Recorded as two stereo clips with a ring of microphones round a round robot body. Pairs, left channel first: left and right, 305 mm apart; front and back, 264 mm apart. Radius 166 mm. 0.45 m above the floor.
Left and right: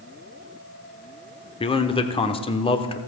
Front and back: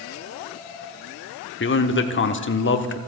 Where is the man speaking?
25° left, 1.1 m.